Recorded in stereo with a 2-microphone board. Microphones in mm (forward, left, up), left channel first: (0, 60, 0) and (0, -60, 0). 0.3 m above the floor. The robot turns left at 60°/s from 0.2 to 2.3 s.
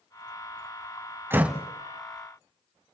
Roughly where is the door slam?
Centre.